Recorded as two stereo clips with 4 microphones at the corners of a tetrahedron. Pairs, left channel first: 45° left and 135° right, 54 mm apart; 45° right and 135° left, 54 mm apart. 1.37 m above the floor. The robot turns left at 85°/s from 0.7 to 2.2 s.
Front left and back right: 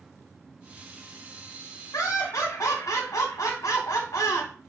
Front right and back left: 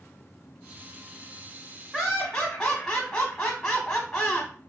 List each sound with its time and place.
1.9 s laughter: 45° left, 0.8 m; by 4.5 s 20° left, 0.8 m